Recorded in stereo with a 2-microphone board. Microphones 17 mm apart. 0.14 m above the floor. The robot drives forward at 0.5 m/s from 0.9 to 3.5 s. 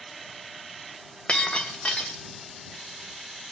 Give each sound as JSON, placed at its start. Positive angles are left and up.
{"t": 1.3, "sound": "breaking glass", "side_deg": 80, "distance_m": 3.5}